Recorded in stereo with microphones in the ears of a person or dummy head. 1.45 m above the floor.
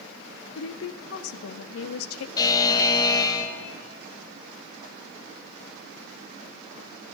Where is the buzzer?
20° left (ahead or behind), 1.1 m.